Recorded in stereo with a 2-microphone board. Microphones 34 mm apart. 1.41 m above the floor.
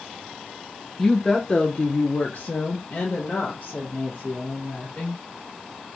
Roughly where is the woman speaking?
Centre.